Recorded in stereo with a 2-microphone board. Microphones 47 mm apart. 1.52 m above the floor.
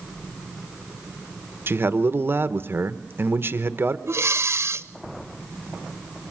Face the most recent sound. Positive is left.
turn(degrees=-70)  # may be behind; listen again after turning